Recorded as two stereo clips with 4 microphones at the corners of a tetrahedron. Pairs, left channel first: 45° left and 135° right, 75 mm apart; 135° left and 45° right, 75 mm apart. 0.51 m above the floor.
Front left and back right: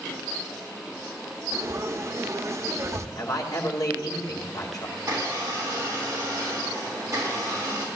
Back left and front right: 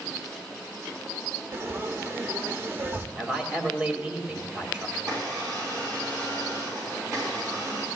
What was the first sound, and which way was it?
Frying, 95° right.